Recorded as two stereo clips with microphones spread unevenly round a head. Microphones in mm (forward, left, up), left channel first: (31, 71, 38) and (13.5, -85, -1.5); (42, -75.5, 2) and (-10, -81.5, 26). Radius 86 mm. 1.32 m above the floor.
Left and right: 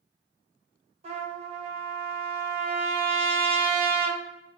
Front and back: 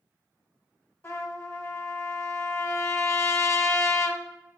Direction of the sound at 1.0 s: 40° right.